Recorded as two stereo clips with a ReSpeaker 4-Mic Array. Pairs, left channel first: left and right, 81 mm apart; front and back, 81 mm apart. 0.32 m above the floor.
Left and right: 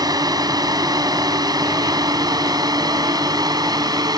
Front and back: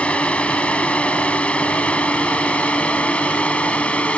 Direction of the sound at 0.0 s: 75° right.